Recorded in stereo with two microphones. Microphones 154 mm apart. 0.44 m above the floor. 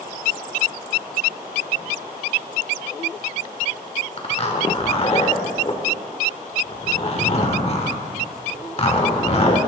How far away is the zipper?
About 1.2 m.